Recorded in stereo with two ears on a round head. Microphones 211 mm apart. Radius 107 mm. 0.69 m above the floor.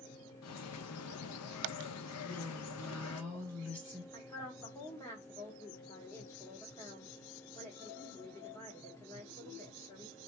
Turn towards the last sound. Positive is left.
turn(degrees=15)  # may be behind; listen again after turning